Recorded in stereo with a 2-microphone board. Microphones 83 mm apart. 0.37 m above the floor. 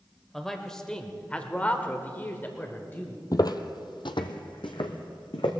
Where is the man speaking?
5° left (ahead or behind), 1.4 m; by 3.2 s 25° left (ahead or behind), 1.4 m.